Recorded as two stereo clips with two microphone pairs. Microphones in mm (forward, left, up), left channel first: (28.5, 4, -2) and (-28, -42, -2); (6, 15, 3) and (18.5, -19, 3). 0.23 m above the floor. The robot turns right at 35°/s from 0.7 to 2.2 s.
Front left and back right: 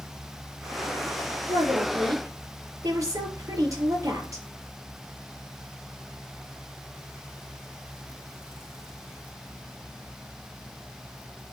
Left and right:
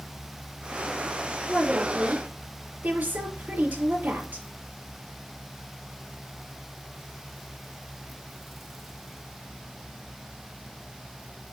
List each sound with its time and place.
1.5 s a woman speaking: 125° right, 5 m; by 4.5 s 100° right, 5 m